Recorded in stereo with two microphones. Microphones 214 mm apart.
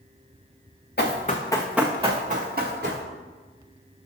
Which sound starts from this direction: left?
Running footsteps, at 1.0 s.